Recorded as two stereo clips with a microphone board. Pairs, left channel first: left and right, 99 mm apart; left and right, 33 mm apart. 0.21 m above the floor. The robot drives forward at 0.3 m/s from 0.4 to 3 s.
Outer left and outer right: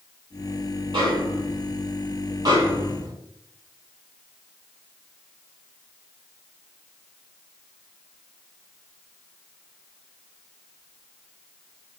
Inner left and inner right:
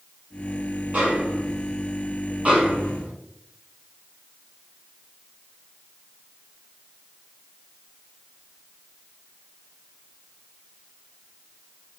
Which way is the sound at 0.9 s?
50° right (ahead or behind).